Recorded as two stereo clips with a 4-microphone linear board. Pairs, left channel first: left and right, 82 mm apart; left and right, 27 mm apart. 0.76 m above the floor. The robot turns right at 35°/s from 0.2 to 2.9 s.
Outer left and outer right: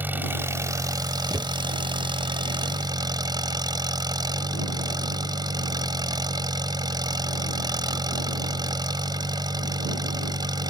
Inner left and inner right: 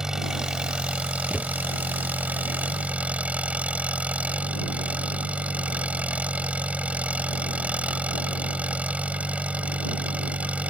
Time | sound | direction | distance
0.0 | an engine running | 155° right | ?
1.3 | a thud | 45° right (ahead or behind) | ?